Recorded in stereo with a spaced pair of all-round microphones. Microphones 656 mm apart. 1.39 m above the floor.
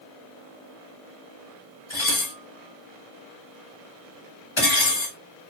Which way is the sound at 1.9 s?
45° left (ahead or behind).